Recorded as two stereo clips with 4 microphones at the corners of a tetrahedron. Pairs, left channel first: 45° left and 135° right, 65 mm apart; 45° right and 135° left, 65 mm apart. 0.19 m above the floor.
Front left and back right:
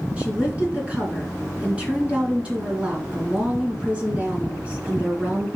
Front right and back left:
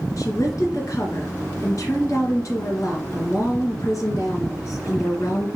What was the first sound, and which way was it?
A woman speaking, 65° right.